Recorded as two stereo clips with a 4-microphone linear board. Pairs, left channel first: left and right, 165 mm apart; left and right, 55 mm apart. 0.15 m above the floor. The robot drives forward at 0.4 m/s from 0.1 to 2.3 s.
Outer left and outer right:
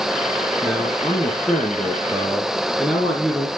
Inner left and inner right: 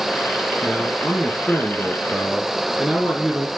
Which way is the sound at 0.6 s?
Centre (ahead or behind).